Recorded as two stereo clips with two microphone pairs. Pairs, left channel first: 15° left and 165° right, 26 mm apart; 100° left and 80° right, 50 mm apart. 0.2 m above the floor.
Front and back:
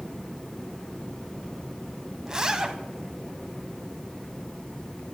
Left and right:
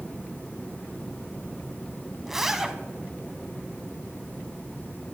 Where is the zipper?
150° right, 0.8 m.